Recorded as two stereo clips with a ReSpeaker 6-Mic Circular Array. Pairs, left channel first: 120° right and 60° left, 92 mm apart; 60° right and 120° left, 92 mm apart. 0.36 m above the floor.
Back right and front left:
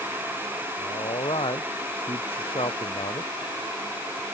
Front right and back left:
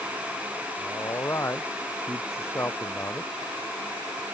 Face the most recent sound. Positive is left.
turn(degrees=-130)